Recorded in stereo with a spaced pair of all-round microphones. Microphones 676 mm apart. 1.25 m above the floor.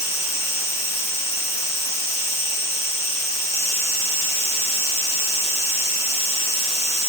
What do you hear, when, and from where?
0.0 s an insect: 5° left (ahead or behind), 9.5 m